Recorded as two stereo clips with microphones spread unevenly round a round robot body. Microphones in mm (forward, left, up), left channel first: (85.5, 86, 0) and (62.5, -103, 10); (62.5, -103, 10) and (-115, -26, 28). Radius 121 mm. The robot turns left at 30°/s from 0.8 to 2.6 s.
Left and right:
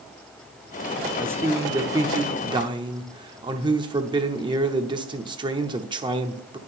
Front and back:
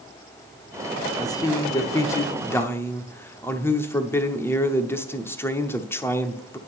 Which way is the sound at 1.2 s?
25° right.